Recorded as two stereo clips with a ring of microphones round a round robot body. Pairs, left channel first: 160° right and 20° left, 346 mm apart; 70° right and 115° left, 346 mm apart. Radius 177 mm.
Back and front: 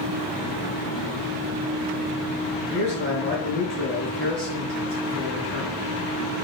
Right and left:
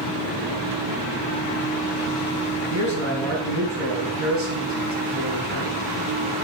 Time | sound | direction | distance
2.7 | a man speaking | 60° left | 4 m